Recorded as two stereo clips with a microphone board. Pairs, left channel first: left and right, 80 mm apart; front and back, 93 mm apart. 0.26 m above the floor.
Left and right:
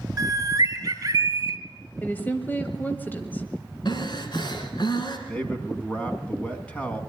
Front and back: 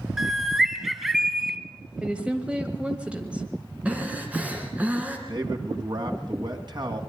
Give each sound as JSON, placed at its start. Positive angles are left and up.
{"t": 0.2, "sound": "a bird", "azimuth_deg": -95, "distance_m": 1.2}
{"t": 2.0, "sound": "a woman speaking", "azimuth_deg": 120, "distance_m": 1.1}
{"t": 3.9, "sound": "breathing", "azimuth_deg": 110, "distance_m": 2.5}
{"t": 5.3, "sound": "a man speaking", "azimuth_deg": 160, "distance_m": 2.0}